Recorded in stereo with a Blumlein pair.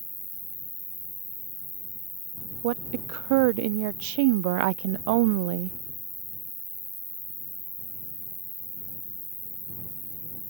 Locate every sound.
0.0 s an insect: straight ahead
2.6 s a woman speaking: 45° right